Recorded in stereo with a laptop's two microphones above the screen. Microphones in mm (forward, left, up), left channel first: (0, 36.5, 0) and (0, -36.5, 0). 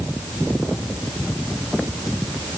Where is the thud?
I don't hear a thud.